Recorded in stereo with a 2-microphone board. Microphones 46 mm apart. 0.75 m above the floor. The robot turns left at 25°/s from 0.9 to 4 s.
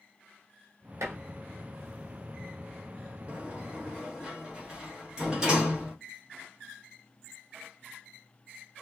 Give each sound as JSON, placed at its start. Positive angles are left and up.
{"t": 1.0, "sound": "dishes clattering", "side_deg": -75, "distance_m": 1.0}
{"t": 3.3, "sound": "a sliding door", "side_deg": -25, "distance_m": 1.1}